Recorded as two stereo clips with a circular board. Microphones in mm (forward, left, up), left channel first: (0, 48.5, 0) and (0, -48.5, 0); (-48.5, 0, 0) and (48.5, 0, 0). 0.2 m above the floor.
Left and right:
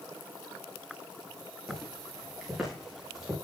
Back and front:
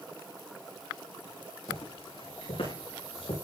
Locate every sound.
1.7 s footsteps: straight behind, 10 m; by 3.4 s 175° right, 9 m